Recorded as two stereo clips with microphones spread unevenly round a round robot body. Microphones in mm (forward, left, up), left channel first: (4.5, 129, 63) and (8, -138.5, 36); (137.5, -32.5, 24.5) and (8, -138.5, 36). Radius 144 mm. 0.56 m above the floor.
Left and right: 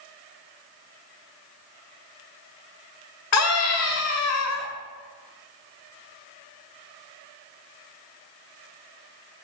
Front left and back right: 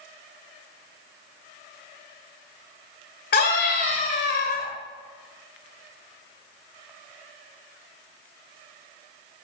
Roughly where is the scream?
Ahead left.